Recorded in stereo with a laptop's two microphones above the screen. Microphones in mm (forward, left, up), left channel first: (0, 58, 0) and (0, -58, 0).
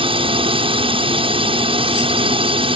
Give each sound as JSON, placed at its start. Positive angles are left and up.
{"t": 0.0, "sound": "a drone", "side_deg": -50}